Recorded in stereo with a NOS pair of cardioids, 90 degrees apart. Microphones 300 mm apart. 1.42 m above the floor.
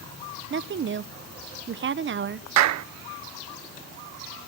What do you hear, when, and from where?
0.5 s a woman speaking: 40° right, 1.1 m
2.6 s a clap: 65° right, 0.7 m